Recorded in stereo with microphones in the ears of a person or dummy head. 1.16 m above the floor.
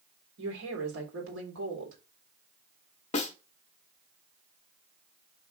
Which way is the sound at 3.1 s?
40° left (ahead or behind).